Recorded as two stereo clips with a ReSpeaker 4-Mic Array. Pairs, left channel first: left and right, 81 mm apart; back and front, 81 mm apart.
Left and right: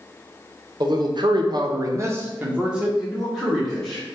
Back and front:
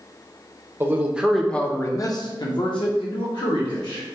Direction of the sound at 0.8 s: 60° right.